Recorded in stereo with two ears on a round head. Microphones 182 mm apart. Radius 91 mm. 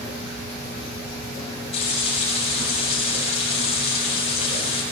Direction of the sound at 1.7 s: 30° left (ahead or behind).